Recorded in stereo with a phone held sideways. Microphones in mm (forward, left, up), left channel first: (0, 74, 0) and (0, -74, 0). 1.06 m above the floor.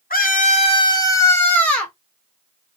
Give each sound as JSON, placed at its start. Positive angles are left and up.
{"t": 0.1, "sound": "a scream", "side_deg": 70, "distance_m": 0.5}